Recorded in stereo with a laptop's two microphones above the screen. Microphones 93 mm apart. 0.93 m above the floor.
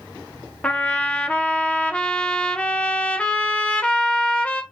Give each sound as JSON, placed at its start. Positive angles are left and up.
{"t": 0.6, "sound": "a trumpet", "side_deg": 15, "distance_m": 0.6}